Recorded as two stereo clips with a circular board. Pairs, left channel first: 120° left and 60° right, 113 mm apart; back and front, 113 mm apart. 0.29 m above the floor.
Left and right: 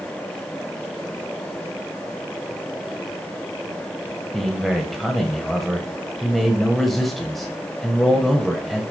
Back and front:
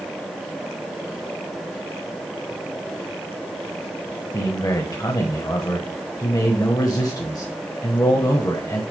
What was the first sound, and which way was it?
A man speaking, 155° right.